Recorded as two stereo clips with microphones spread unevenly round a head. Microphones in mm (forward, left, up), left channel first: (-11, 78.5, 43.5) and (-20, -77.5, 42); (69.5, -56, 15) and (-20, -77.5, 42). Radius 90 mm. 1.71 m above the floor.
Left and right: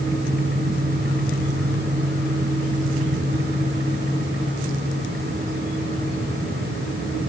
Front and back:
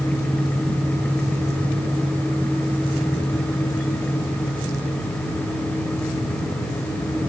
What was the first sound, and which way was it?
Only background noise.